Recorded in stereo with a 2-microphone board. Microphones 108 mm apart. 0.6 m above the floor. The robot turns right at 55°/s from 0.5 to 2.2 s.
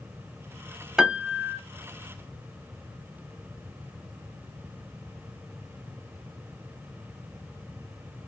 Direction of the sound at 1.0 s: 175° right.